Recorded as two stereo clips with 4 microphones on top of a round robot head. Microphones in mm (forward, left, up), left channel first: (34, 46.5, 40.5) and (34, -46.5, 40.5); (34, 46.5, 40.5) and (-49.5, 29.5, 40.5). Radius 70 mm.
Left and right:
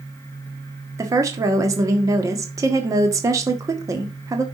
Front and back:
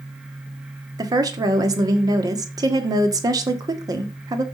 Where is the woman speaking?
135° right, 1.6 m.